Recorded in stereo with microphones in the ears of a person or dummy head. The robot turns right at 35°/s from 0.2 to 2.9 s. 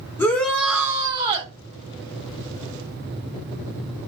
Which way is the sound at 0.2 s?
165° left.